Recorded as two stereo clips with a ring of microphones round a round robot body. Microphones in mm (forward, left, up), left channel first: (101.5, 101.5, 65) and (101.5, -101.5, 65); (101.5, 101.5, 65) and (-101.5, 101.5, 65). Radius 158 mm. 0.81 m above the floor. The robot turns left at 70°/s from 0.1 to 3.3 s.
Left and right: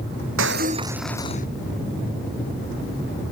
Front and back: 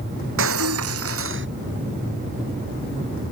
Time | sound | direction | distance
0.4 | breaking glass | 135° right | ?